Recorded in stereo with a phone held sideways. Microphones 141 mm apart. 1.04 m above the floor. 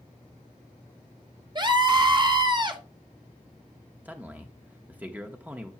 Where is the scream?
30° right (ahead or behind), 1.1 m.